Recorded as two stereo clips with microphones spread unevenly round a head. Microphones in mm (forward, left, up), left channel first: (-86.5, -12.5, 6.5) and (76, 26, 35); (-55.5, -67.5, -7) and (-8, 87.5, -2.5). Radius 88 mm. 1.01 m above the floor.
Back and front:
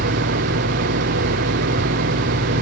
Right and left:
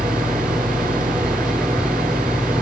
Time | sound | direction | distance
0.0 | an engine running | 10° right | ?